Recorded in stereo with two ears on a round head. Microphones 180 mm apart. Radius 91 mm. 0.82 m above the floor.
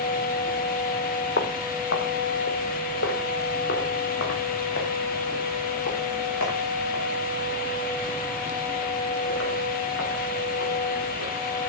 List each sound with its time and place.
1.4 s footsteps: 50° left (ahead or behind), 1.4 m; by 11.3 s 60° left (ahead or behind), 8 m